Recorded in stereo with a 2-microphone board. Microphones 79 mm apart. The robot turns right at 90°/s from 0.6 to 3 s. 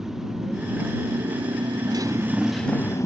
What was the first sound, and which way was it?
A motorcycle, 175° right.